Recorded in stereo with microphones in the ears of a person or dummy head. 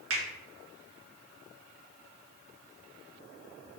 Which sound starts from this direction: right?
A finger snap, at 0.1 s.